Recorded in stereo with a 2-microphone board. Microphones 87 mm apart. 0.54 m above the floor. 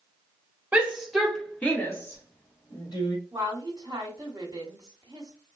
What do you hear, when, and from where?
0.7 s a shout: 15° right (ahead or behind), 1.0 m; by 3.2 s 55° left (ahead or behind), 1.5 m
3.3 s a woman speaking: 35° right (ahead or behind), 1.0 m